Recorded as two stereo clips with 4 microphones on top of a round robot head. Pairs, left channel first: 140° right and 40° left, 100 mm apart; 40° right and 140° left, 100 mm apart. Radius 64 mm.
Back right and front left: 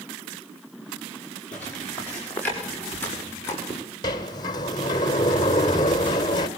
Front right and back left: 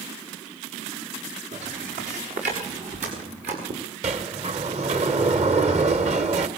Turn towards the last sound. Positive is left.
turn(degrees=165)